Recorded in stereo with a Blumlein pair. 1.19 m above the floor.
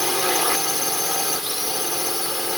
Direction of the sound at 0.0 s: Straight ahead.